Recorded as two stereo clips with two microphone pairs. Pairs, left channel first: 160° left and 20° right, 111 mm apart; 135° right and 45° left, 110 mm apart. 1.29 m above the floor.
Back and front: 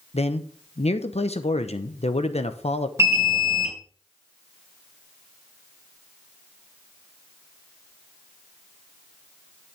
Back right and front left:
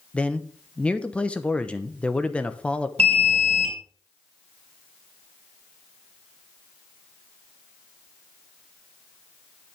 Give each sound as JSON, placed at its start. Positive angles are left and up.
{"t": 0.1, "sound": "a man speaking", "azimuth_deg": 145, "distance_m": 0.9}
{"t": 3.0, "sound": "an alarm", "azimuth_deg": 40, "distance_m": 2.5}